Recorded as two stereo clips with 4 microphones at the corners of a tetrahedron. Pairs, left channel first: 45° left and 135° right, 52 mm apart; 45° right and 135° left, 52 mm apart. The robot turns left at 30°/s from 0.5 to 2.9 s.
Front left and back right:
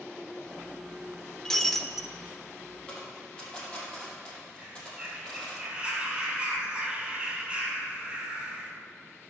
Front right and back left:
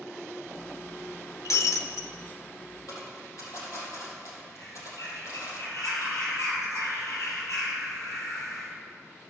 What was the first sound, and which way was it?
Breaking glass, 30° right.